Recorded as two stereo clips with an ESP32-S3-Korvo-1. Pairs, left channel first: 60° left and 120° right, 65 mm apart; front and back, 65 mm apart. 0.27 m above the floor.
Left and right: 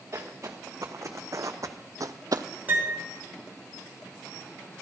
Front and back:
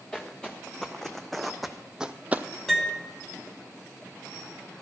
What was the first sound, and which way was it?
Footsteps, 80° right.